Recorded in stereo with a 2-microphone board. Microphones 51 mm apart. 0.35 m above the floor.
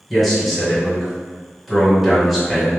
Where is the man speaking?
Centre (ahead or behind), 1.4 m.